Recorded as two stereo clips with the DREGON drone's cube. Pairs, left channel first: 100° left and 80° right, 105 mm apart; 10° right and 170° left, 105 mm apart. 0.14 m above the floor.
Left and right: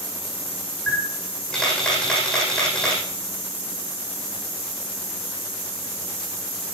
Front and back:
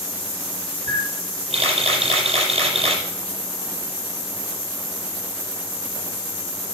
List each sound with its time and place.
0.9 s a camera shutter: 175° right, 6 m